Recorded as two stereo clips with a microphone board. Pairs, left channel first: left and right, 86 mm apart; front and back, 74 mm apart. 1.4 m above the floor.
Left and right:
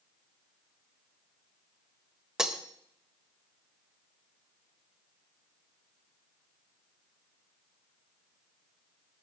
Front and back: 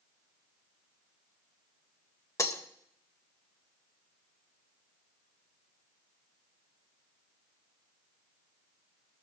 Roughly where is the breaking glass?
Ahead.